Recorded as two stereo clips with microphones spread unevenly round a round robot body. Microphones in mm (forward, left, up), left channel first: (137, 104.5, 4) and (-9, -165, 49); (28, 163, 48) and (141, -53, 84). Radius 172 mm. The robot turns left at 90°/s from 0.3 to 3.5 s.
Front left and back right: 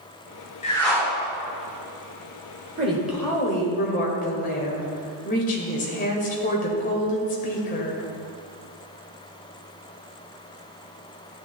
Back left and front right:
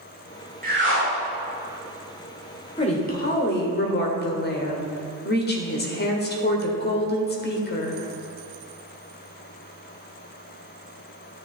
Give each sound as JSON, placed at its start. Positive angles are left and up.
{"t": 0.6, "sound": "a whoosh", "azimuth_deg": 0, "distance_m": 2.5}
{"t": 2.8, "sound": "a woman speaking", "azimuth_deg": 175, "distance_m": 1.6}